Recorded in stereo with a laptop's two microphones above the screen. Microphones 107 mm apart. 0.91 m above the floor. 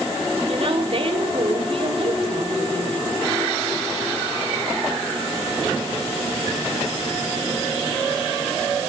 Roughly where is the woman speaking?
Right.